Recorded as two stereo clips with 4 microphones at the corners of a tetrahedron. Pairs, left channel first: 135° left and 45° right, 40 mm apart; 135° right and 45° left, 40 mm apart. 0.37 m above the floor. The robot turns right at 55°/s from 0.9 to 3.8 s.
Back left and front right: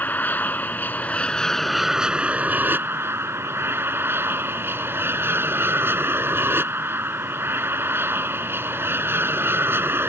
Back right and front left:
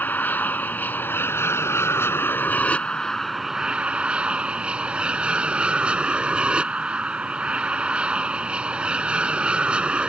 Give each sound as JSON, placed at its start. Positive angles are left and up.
{"t": 0.0, "sound": "an aircraft", "azimuth_deg": 180}